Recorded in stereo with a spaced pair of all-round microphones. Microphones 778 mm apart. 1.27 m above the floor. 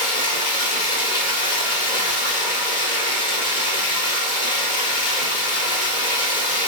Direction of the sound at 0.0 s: 75° left (ahead or behind).